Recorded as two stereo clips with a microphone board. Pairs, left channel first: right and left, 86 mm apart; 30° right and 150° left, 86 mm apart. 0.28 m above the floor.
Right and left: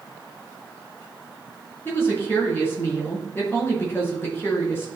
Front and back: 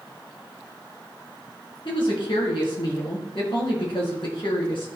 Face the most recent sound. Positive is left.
turn(degrees=-25)